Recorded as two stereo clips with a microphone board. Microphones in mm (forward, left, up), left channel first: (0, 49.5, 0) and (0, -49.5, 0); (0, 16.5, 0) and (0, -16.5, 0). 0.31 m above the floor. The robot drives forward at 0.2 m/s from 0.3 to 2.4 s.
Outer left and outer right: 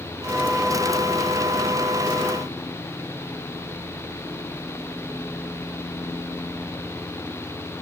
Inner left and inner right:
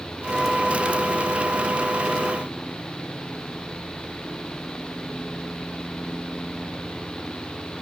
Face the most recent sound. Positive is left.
No sound to turn to.